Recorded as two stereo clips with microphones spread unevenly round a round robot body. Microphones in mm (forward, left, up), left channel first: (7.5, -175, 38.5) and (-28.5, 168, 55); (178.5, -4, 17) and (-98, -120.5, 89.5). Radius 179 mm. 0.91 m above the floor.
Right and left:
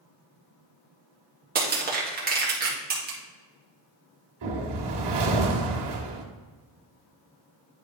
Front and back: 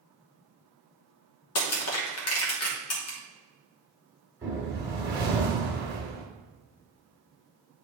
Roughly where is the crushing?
Ahead left.